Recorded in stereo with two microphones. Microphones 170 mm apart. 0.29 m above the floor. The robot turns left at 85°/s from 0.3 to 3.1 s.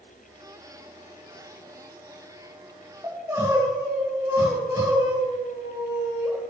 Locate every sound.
3.0 s crying: 20° right (ahead or behind), 4 m; by 6.3 s 15° right (ahead or behind), 4 m